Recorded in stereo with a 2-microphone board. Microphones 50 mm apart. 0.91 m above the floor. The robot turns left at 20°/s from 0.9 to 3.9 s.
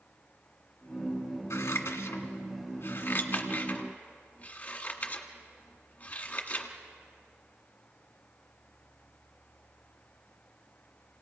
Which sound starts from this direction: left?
Scissors, at 1.5 s.